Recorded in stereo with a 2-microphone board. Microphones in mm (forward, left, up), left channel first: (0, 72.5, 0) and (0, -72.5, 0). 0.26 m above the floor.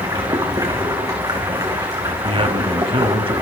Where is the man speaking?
40° right (ahead or behind), 1.7 m.